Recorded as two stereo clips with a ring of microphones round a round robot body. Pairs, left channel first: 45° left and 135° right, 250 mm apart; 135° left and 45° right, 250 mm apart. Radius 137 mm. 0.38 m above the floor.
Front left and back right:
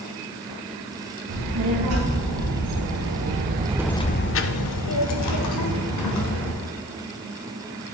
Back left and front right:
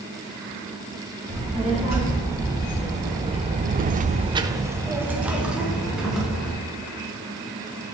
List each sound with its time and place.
1.3 s a child speaking: 125° right, 3 m; by 6.5 s 45° left, 3 m